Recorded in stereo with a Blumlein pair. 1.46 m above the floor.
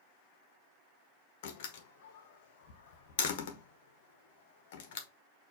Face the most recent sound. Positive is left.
turn(degrees=55)